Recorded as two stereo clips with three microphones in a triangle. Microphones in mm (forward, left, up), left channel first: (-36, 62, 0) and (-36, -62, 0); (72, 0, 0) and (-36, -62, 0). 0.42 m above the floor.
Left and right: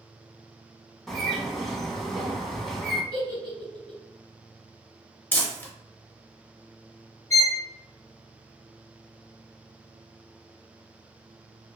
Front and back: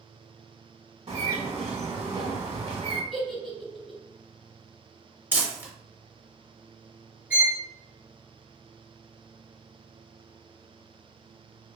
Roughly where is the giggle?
Ahead right.